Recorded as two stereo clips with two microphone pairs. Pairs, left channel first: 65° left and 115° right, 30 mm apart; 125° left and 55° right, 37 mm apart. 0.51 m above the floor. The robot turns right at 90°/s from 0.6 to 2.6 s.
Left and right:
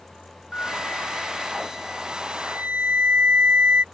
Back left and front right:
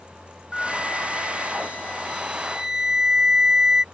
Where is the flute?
55° left; by 3.8 s 125° right.